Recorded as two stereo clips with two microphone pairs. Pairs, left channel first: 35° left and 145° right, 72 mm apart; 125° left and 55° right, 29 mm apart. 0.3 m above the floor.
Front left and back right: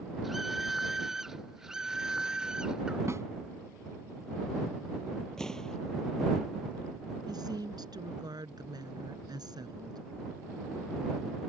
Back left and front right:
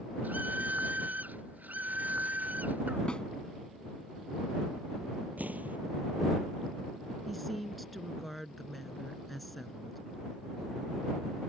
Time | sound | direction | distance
0.2 | a scream | 55° right | ?
3.1 | a snare drum | 175° left | ?
5.4 | an explosion | 45° right | ?
7.3 | a woman speaking | 145° right | ?